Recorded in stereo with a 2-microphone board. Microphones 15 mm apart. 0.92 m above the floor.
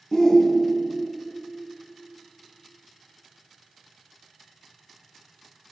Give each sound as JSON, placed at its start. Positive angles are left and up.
{"t": 0.1, "sound": "a shout", "side_deg": 35, "distance_m": 0.8}